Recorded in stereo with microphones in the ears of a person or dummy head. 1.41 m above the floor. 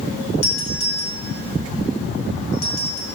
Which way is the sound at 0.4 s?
85° left.